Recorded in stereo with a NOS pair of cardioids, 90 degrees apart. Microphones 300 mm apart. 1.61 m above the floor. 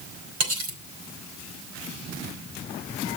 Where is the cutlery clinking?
70° right, 4.5 m.